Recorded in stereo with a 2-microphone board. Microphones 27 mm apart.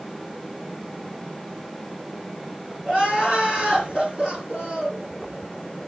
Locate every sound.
2.9 s crying: 25° right (ahead or behind), 6.5 m